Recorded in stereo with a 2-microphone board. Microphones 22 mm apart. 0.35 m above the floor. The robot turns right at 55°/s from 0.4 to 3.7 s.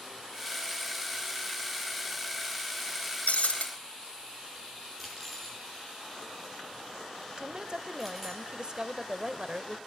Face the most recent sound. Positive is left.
turn(degrees=-40)  # may be behind; listen again after turning